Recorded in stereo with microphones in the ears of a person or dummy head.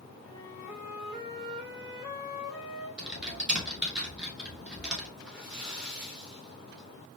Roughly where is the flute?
Centre.